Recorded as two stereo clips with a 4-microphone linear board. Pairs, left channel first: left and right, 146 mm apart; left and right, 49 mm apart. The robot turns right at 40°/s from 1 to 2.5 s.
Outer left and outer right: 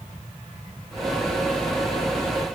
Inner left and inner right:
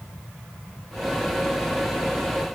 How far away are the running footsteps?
I don't hear running footsteps.